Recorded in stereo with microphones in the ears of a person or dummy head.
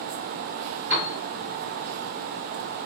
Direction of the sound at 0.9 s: 40° right (ahead or behind).